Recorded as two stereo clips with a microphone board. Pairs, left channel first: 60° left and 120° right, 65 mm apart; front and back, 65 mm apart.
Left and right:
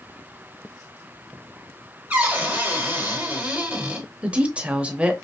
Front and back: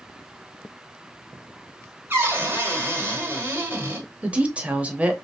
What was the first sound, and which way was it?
A cupboard door, 165° right.